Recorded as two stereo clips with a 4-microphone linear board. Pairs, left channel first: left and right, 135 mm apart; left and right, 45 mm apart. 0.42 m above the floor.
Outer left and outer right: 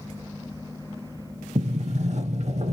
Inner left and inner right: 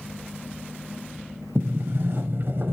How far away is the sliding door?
About 0.5 m.